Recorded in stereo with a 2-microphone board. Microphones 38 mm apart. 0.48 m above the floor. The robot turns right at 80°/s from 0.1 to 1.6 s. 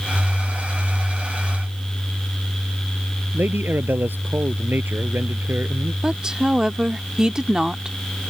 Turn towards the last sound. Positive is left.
turn(degrees=-15)  # may be behind; listen again after turning